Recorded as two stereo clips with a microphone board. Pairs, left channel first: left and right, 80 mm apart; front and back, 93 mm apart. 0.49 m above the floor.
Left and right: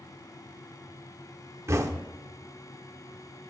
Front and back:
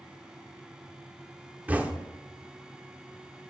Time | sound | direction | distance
1.7 | knocking | 115° right | 0.7 m